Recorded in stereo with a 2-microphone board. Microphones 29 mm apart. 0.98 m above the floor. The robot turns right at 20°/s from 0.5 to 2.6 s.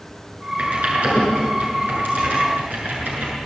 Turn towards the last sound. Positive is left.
turn(degrees=-80)